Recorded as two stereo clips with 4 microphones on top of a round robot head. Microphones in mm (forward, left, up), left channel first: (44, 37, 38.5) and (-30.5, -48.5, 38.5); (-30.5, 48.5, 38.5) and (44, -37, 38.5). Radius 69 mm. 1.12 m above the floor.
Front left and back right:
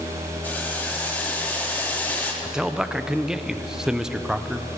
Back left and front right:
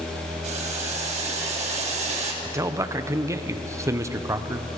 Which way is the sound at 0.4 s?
25° right.